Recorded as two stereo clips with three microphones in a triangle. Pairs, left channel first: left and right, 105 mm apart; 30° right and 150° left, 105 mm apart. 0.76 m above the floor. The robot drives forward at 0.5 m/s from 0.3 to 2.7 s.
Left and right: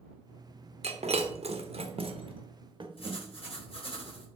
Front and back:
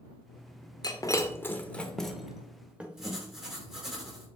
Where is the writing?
65° left, 4 m.